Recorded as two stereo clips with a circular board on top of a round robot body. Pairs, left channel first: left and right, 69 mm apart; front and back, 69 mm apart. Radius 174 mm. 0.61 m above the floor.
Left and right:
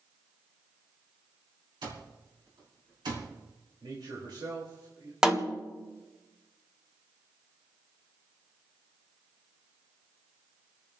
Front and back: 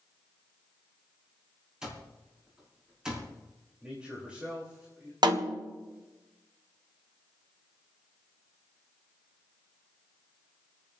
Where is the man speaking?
105° right, 3.5 m.